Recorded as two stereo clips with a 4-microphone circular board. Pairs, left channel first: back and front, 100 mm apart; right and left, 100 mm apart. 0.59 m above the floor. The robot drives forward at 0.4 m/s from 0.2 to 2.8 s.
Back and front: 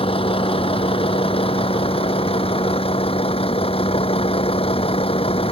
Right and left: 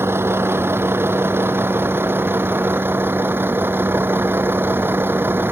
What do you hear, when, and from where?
0.0 s a vehicle: 155° left; by 5.5 s 160° left